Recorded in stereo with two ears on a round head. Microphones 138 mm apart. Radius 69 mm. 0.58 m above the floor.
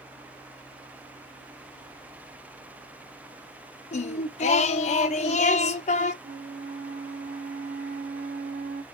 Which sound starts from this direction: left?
Singing, at 3.9 s.